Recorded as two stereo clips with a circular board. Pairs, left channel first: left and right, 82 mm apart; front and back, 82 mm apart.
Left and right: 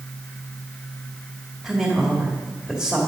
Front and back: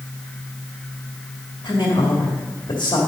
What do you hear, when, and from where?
1.6 s a woman speaking: 5° left, 2.5 m